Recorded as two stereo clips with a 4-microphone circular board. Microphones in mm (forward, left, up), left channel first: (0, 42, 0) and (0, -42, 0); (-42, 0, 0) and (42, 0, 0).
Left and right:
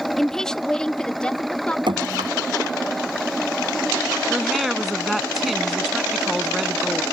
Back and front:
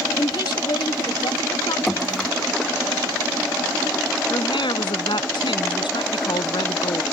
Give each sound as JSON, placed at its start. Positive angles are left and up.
{"t": 0.2, "sound": "a woman speaking", "azimuth_deg": 175}
{"t": 1.9, "sound": "dripping", "azimuth_deg": -95}
{"t": 4.3, "sound": "a woman speaking", "azimuth_deg": 180}